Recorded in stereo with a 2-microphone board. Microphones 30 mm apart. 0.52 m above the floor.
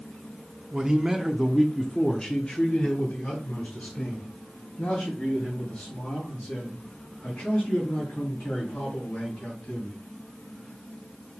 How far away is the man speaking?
About 0.9 m.